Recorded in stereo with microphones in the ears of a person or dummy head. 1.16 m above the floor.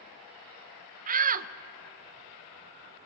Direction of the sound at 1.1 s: 45° right (ahead or behind).